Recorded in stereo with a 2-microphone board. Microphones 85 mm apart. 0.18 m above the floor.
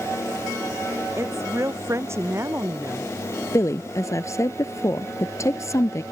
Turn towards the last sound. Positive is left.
turn(degrees=35)  # may be behind; listen again after turning